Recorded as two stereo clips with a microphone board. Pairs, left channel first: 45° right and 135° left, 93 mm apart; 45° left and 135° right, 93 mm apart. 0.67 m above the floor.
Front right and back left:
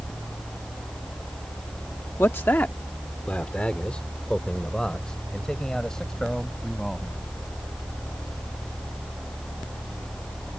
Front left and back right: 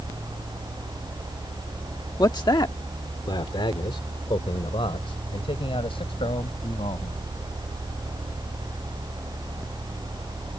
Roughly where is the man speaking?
Ahead.